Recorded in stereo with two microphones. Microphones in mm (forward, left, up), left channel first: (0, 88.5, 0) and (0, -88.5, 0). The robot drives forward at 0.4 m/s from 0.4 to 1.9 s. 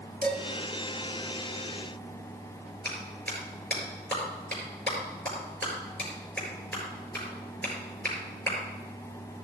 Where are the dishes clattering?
65° right (ahead or behind), 2.0 m; by 0.4 s 60° right (ahead or behind), 2.0 m.